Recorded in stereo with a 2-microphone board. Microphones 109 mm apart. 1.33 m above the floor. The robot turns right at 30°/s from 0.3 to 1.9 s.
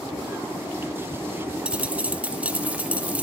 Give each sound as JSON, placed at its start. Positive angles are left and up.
{"t": 1.6, "sound": "a dropped coin", "side_deg": -10, "distance_m": 0.8}